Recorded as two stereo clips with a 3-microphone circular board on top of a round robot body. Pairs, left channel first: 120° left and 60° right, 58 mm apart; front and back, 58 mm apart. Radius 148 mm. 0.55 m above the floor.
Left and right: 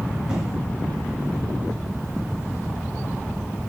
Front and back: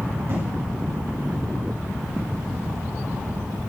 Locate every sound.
0.3 s an explosion: 135° right, 5 m